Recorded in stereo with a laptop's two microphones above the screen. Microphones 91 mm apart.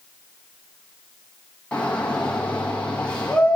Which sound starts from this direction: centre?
A shout, at 1.7 s.